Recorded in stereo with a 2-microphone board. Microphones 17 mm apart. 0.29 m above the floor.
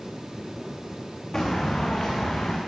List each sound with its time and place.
1.3 s footsteps: 50° left (ahead or behind), 1.4 m; by 2.6 s 75° left (ahead or behind), 1.6 m